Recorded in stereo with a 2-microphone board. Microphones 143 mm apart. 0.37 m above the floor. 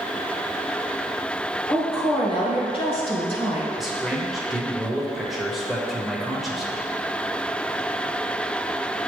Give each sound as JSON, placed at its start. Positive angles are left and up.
{"t": 1.7, "sound": "a woman speaking", "side_deg": 40, "distance_m": 1.5}
{"t": 3.8, "sound": "a man speaking", "side_deg": 0, "distance_m": 1.0}